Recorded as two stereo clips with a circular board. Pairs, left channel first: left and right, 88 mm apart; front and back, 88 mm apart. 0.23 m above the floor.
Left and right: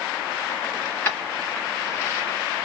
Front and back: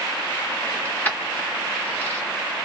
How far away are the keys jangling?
About 0.9 m.